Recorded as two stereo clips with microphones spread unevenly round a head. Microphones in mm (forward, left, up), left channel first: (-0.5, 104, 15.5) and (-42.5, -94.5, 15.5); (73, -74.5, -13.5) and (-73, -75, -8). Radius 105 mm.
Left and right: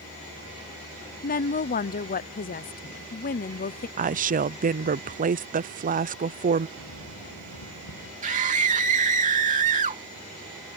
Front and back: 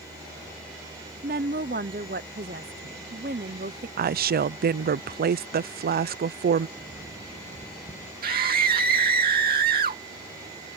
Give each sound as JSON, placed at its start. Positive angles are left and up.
{"t": 1.2, "sound": "a woman speaking", "azimuth_deg": 130}
{"t": 4.0, "sound": "a woman speaking", "azimuth_deg": -155}
{"t": 6.8, "sound": "footsteps", "azimuth_deg": 65}
{"t": 8.2, "sound": "a scream", "azimuth_deg": -160}